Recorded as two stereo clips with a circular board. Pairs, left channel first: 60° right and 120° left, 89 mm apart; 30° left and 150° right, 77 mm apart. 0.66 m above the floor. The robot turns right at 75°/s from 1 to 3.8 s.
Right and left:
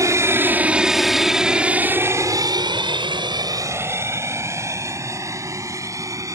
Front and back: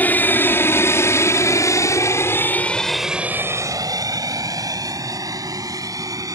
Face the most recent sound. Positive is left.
turn(degrees=170)